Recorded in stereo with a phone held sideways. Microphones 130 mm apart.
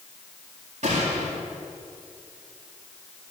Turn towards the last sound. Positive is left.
turn(degrees=-65)  # may be behind; listen again after turning